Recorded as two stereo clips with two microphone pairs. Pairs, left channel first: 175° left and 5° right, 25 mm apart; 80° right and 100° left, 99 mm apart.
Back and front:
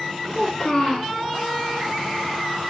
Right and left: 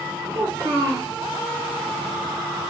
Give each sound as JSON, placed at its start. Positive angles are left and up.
{"t": 0.3, "sound": "a child speaking", "azimuth_deg": 120, "distance_m": 0.8}